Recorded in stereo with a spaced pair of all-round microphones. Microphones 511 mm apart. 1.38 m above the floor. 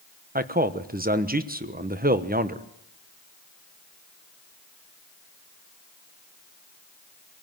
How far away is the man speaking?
About 1.1 m.